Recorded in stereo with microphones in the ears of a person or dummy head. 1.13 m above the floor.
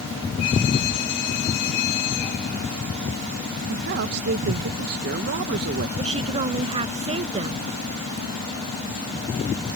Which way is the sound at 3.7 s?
55° right (ahead or behind).